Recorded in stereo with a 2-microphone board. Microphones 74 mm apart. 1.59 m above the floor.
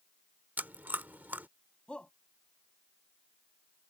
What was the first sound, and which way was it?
Chewing, 25° right (ahead or behind).